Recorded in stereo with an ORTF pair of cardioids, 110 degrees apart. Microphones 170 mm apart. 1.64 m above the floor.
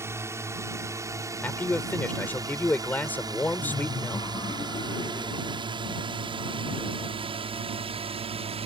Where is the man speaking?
10° left.